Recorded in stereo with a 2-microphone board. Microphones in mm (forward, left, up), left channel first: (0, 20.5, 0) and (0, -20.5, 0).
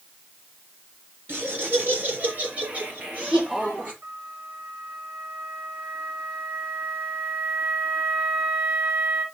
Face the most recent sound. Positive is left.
turn(degrees=-45)  # may be behind; listen again after turning